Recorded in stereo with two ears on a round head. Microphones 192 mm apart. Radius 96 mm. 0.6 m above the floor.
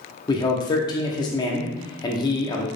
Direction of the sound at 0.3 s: 20° left (ahead or behind).